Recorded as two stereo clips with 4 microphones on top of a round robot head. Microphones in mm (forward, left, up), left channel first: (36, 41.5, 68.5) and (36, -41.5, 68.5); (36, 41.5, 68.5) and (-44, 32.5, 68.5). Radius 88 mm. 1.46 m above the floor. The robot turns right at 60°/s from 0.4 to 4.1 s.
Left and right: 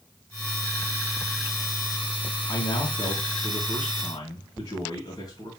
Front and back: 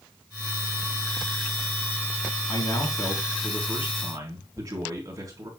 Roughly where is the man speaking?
Ahead left.